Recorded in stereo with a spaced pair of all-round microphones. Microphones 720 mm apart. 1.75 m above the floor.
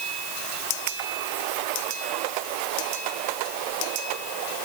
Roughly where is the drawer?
No drawer in this recording.